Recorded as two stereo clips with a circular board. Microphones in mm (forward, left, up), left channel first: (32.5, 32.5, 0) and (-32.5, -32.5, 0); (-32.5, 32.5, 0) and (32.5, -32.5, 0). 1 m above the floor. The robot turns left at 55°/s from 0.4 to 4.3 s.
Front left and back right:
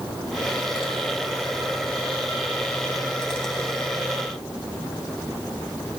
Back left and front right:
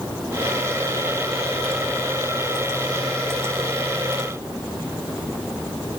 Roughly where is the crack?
I don't hear a crack.